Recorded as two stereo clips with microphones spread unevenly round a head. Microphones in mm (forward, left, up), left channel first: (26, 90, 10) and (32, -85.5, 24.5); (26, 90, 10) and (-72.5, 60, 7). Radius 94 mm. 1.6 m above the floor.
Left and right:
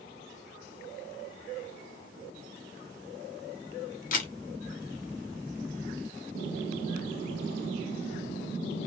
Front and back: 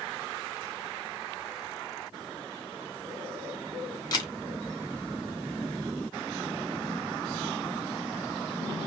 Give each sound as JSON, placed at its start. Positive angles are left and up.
{"t": 4.1, "sound": "a camera shutter", "azimuth_deg": 60, "distance_m": 1.1}